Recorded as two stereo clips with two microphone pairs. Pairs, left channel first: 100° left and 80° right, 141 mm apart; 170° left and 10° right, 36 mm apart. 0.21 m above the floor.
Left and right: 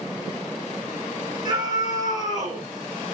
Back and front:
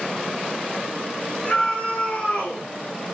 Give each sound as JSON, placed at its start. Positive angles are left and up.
{"t": 1.4, "sound": "a scream", "azimuth_deg": -135, "distance_m": 3.5}